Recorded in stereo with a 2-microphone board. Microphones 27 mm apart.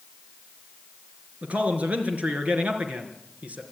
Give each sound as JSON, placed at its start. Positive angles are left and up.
{"t": 1.4, "sound": "a man speaking", "side_deg": -60, "distance_m": 3.5}